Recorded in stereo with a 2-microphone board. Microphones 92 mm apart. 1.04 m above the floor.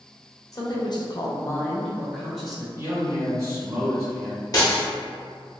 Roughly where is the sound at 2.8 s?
Right.